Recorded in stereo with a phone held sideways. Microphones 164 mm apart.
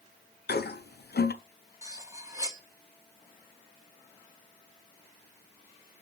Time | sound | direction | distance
0.5 | a toilet flushing | 90° left | 0.6 m
1.8 | cutlery clinking | 20° right (ahead or behind) | 0.9 m